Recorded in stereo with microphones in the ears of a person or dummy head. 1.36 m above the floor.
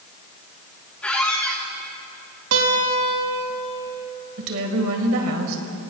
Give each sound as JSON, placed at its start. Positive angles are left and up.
{"t": 1.0, "sound": "a squeak", "side_deg": 10, "distance_m": 1.3}
{"t": 2.5, "sound": "a guitar", "side_deg": -80, "distance_m": 1.7}
{"t": 4.4, "sound": "a woman speaking", "side_deg": -75, "distance_m": 1.6}